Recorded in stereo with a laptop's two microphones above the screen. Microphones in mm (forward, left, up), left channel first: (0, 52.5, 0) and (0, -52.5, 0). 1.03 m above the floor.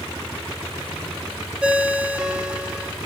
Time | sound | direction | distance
1.6 | a ringtone | 10° right (ahead or behind) | 0.5 m